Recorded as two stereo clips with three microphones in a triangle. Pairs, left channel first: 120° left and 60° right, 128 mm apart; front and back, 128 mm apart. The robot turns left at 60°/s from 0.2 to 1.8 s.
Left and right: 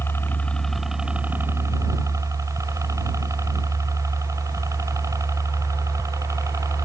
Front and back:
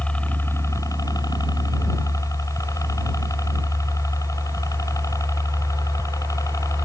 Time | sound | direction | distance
0.0 | a helicopter | 70° left | ?